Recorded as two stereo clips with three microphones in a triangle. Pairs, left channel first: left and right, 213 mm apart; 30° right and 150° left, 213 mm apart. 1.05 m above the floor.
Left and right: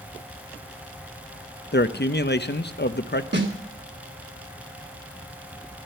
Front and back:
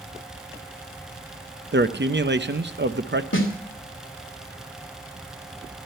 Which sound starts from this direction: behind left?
A man speaking, at 1.7 s.